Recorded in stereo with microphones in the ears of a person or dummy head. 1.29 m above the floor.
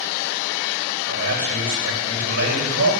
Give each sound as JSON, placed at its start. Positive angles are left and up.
{"t": 1.1, "sound": "a man speaking", "side_deg": -65, "distance_m": 7.0}